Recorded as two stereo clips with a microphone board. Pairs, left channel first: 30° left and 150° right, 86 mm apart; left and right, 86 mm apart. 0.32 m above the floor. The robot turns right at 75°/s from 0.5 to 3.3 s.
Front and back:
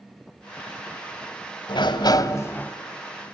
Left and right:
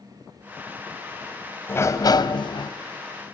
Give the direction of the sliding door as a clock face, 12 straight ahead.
11 o'clock.